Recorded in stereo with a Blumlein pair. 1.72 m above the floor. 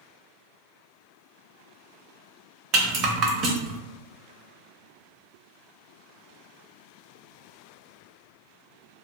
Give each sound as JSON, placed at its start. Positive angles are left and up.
{"t": 2.7, "sound": "a rattle", "azimuth_deg": -30, "distance_m": 0.6}